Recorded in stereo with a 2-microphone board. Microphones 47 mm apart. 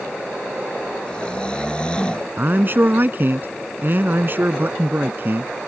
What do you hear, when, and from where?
1.1 s snoring: 20° left (ahead or behind)
2.4 s a man speaking: 45° right (ahead or behind)